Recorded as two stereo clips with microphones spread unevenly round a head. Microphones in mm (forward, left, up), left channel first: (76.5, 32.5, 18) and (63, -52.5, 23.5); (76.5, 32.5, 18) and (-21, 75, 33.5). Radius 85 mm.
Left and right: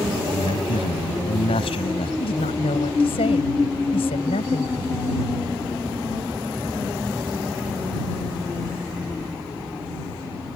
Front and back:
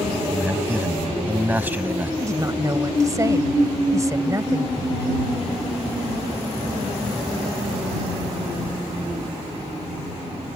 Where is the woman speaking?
100° left.